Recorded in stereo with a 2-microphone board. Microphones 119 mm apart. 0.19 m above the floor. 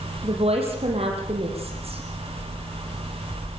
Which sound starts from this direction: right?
A woman speaking, at 0.2 s.